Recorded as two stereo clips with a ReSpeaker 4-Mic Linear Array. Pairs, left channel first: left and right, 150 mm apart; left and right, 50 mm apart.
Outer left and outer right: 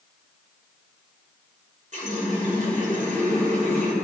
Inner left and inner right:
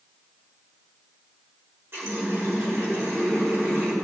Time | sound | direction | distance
1.9 | a running tap | 55° right (ahead or behind) | 3.5 m